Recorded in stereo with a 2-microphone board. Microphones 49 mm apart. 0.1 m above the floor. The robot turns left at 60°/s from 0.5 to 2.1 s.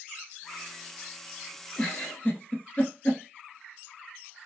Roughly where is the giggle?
Left.